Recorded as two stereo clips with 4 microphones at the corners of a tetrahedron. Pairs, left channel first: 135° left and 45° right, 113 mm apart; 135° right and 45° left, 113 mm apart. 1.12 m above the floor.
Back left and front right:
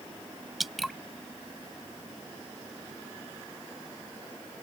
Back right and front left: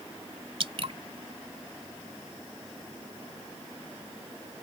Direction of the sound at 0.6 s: 45° left.